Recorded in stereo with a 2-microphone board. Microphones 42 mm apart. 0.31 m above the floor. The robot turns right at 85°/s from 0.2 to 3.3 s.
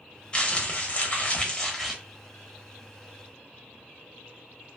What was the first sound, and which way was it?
Crumpling, 45° left.